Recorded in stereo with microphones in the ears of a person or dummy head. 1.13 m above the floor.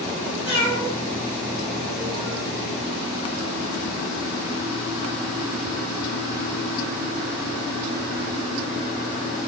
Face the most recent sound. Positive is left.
turn(degrees=-45)  # may be behind; listen again after turning